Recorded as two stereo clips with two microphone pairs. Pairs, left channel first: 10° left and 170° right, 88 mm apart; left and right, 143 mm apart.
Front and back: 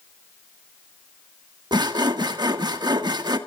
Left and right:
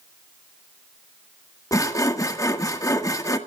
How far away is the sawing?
About 1.4 m.